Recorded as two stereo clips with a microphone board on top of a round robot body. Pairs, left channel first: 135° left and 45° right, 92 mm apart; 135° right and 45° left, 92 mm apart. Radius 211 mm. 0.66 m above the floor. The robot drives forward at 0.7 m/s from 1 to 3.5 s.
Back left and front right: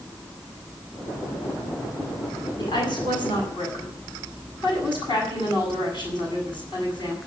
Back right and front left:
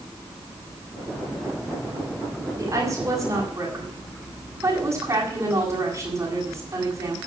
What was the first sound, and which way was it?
A woman speaking, 95° left.